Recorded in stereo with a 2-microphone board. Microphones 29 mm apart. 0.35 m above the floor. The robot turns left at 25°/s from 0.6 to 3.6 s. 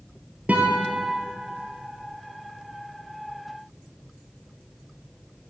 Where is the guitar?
65° right (ahead or behind), 1.6 m; by 1.0 s 75° right (ahead or behind), 1.6 m.